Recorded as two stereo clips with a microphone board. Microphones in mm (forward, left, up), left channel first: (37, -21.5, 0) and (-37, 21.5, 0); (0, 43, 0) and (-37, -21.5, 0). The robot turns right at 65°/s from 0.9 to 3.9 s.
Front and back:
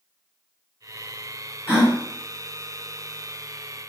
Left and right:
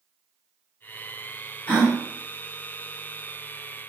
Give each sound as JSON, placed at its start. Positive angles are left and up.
{"t": 1.7, "sound": "a gasp", "azimuth_deg": 15, "distance_m": 1.0}